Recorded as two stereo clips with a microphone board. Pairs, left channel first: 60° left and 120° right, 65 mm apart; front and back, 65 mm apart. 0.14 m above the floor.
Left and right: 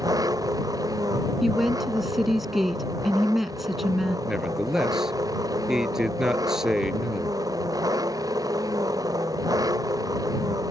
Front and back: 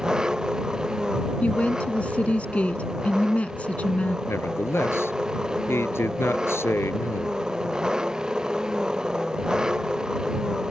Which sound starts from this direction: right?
An engine running, at 0.0 s.